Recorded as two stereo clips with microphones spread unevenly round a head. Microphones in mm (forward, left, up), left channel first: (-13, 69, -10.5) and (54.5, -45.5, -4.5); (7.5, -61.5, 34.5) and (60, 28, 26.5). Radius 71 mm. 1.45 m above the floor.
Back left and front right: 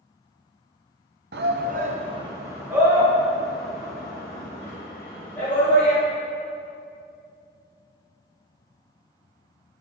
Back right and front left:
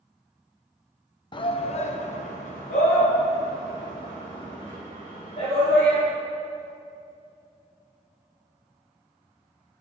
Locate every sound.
1.3 s a shout: 75° right, 0.9 m; by 6.0 s 160° right, 4 m